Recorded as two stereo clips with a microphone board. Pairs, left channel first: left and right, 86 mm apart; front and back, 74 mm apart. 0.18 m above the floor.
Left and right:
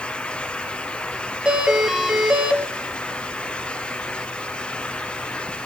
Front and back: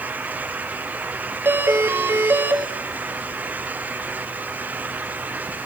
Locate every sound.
1.4 s a doorbell: 165° right, 1.9 m